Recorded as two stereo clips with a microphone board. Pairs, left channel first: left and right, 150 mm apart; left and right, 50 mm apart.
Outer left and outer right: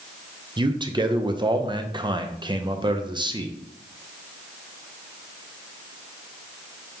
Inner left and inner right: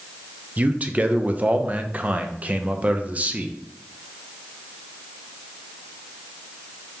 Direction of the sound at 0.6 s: 30° right (ahead or behind).